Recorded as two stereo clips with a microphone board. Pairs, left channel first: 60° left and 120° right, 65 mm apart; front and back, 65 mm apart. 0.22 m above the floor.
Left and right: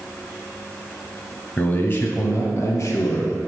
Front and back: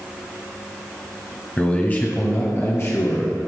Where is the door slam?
I don't hear a door slam.